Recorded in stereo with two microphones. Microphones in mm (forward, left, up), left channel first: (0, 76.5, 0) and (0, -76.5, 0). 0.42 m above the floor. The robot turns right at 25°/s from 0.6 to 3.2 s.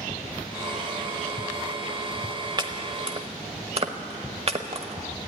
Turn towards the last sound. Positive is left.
turn(degrees=-45)  # may be behind; listen again after turning